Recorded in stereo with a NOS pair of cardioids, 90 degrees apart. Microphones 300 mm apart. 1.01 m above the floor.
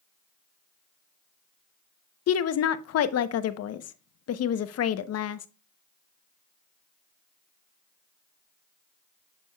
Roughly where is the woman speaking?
Ahead left.